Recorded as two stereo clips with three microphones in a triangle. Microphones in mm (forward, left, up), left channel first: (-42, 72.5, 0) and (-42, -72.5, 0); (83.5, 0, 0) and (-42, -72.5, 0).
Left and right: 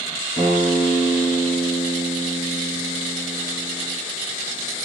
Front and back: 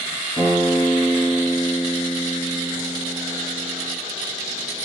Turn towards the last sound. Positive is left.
turn(degrees=55)